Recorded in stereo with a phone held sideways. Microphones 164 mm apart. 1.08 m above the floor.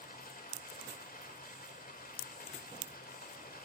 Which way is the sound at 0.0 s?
65° left (ahead or behind).